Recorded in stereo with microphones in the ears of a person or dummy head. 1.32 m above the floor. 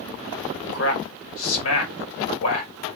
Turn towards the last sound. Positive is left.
turn(degrees=70)  # may be behind; listen again after turning